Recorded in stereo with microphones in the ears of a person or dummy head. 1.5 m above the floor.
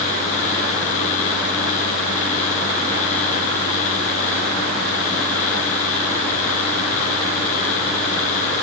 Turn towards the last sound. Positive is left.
No sound to turn to.